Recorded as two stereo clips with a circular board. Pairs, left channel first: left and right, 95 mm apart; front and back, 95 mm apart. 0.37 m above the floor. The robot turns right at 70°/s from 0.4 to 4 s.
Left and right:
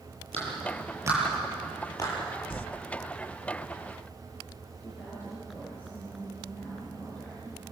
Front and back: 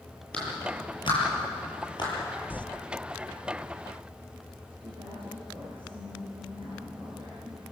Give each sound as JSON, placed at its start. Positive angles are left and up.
{"t": 0.3, "sound": "a clap", "azimuth_deg": -80, "distance_m": 8.0}
{"t": 2.5, "sound": "crumpling", "azimuth_deg": 65, "distance_m": 0.8}
{"t": 4.8, "sound": "a woman speaking", "azimuth_deg": 160, "distance_m": 7.0}